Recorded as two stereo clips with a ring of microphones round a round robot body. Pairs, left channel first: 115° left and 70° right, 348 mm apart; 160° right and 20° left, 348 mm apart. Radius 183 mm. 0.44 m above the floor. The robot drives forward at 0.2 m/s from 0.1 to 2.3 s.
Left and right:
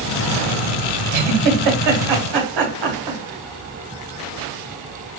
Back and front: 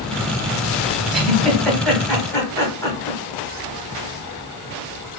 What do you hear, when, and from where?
1.1 s a giggle: 65° right, 1.5 m; by 3.2 s 75° right, 1.5 m